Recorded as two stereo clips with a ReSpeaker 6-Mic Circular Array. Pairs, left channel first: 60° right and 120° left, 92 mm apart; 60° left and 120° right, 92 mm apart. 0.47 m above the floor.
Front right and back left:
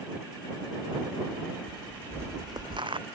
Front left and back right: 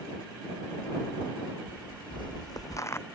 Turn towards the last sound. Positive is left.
turn(degrees=120)